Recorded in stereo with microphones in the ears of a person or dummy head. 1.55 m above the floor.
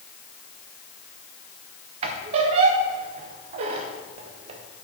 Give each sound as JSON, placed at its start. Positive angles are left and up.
{"t": 2.0, "sound": "a squeak", "side_deg": -30, "distance_m": 0.6}